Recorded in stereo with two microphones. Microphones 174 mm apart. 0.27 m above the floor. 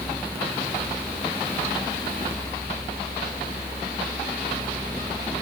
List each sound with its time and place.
Only background noise.